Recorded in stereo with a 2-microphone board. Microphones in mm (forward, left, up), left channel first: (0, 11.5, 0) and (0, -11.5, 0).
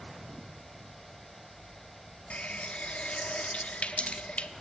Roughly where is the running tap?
Left.